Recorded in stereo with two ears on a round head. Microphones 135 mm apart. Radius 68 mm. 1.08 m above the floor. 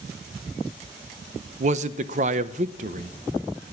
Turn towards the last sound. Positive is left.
turn(degrees=-55)  # may be behind; listen again after turning